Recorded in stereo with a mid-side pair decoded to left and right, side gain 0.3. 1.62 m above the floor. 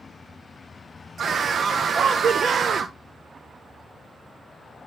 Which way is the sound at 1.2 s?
65° right.